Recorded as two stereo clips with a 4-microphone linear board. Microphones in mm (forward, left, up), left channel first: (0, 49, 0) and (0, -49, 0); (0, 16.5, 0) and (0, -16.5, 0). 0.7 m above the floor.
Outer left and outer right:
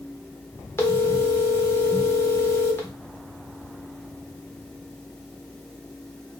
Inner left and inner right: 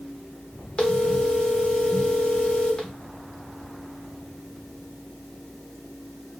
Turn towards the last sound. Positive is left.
turn(degrees=25)  # may be behind; listen again after turning